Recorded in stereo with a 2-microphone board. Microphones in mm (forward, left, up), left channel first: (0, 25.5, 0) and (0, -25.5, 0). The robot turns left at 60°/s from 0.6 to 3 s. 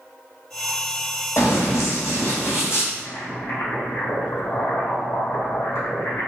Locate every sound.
1.4 s running footsteps: 60° left (ahead or behind), 1.7 m; by 2.8 s 50° left (ahead or behind), 1.8 m
2.9 s boiling: 60° left (ahead or behind), 1.7 m; by 6.3 s 65° left (ahead or behind), 1.7 m